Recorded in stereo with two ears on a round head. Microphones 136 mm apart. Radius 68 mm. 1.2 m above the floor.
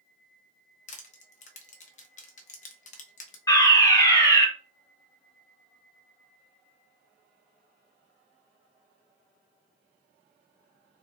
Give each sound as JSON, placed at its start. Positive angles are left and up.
{"t": 0.9, "sound": "crushing", "side_deg": 50, "distance_m": 0.8}
{"t": 3.5, "sound": "a fire alarm", "side_deg": 25, "distance_m": 2.0}